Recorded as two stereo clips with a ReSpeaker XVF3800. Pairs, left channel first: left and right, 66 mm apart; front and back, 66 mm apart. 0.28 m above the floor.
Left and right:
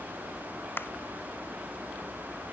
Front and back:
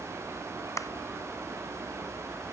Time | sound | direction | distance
0.8 | a clap | 35° left | ?